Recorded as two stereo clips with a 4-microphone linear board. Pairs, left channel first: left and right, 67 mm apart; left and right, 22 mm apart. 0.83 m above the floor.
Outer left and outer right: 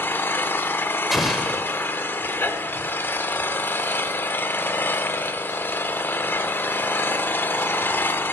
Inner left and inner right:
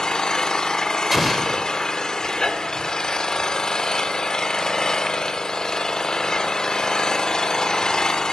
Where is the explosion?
Centre (ahead or behind), 1.2 m.